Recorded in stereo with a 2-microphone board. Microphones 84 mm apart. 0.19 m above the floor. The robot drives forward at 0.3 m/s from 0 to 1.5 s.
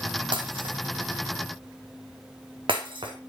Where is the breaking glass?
85° right, 2 m; by 3.1 s 75° right (ahead or behind), 2.5 m.